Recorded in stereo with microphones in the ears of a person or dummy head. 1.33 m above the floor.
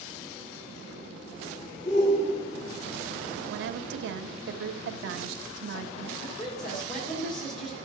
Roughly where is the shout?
Left.